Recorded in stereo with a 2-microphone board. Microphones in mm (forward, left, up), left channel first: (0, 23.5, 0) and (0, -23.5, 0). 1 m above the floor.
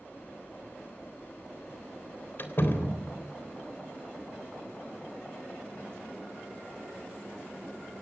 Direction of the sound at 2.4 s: 45° left (ahead or behind).